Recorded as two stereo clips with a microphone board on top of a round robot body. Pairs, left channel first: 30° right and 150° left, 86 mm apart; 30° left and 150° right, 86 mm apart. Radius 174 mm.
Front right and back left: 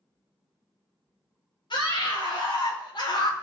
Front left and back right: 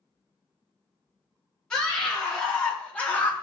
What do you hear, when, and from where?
1.7 s a scream: 50° right, 4 m; by 3.3 s 40° right, 2 m